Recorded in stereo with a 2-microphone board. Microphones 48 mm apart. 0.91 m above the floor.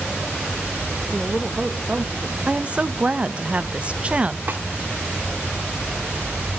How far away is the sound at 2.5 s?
About 0.6 m.